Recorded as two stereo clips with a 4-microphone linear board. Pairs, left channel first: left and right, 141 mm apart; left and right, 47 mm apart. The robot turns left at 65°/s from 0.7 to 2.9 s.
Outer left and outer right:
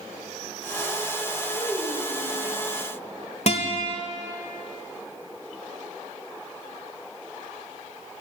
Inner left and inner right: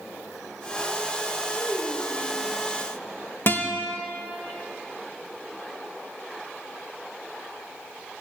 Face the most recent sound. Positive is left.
turn(degrees=50)  # may be behind; listen again after turning